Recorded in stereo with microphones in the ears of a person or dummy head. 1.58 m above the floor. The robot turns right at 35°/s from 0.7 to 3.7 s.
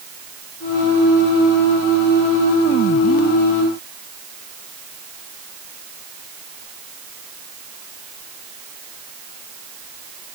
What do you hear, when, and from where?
Only background noise.